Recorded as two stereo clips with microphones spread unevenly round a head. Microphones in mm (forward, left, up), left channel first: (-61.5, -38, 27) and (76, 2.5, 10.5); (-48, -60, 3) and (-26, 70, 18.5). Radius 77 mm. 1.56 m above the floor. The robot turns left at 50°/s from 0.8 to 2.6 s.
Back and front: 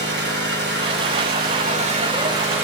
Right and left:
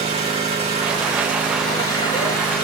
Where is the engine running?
30° left, 5.5 m; by 2.6 s 60° right, 5.5 m.